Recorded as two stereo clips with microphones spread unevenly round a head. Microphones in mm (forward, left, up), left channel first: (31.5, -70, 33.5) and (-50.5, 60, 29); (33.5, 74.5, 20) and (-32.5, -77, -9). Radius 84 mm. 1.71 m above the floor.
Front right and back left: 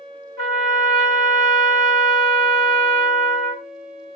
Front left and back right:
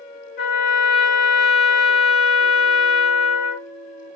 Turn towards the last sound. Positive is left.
turn(degrees=90)